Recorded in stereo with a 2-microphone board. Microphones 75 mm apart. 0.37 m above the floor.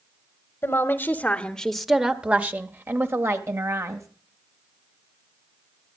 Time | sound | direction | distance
0.6 | a woman speaking | 35° left (ahead or behind) | 1.1 m